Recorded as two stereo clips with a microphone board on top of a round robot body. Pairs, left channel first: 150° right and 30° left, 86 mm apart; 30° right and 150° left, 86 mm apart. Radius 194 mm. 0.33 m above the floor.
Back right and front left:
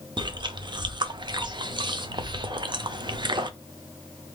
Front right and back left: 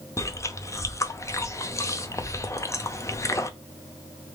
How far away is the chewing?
About 0.8 m.